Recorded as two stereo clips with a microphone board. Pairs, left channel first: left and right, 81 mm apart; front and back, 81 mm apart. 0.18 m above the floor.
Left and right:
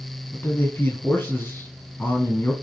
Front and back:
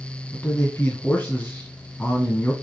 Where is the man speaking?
50° left, 1.5 m.